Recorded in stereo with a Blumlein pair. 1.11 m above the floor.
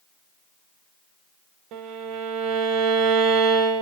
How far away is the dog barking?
I don't hear a dog barking.